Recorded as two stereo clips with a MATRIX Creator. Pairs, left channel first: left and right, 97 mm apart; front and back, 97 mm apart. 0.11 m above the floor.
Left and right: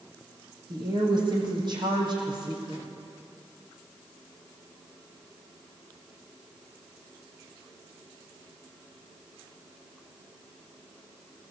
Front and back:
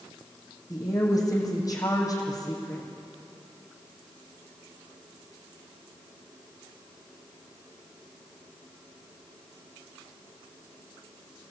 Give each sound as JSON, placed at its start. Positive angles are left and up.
{"t": 0.7, "sound": "a woman speaking", "azimuth_deg": -50, "distance_m": 5.0}